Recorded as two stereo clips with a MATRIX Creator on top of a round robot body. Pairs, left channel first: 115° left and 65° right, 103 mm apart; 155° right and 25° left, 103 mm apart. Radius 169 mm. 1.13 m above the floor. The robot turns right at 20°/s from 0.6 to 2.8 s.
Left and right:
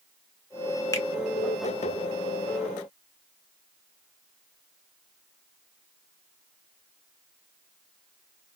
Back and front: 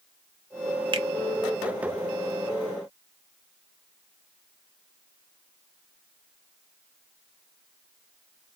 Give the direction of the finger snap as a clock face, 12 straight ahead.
10 o'clock.